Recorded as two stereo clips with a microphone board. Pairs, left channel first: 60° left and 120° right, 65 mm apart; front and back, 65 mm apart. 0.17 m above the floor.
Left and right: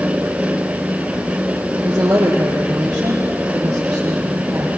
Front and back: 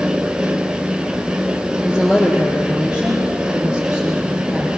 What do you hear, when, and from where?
1.8 s a woman speaking: 105° right, 4 m